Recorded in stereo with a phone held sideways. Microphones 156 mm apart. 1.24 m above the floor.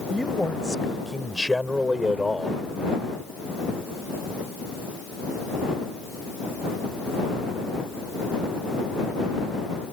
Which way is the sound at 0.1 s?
5° left (ahead or behind).